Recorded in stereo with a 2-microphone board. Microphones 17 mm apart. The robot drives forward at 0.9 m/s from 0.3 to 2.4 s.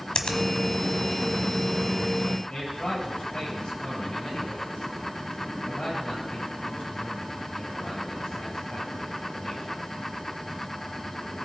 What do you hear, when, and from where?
0.1 s a finger snap: 50° left (ahead or behind), 1.3 m
2.5 s a man speaking: 55° left (ahead or behind), 7 m